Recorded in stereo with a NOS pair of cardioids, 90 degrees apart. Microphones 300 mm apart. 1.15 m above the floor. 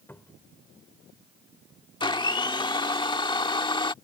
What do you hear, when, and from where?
0.1 s a cupboard door: 5° left
2.0 s a blender: 15° left